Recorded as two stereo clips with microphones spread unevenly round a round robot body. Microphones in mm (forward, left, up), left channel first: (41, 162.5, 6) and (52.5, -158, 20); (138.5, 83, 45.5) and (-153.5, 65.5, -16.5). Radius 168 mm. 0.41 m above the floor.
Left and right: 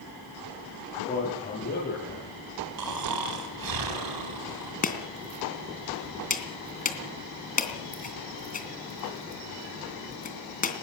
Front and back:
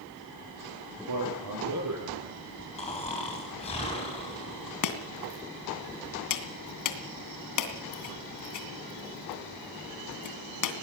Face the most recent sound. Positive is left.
turn(degrees=25)